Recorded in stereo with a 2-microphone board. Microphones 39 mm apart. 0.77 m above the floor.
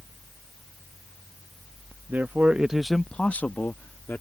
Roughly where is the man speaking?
Right.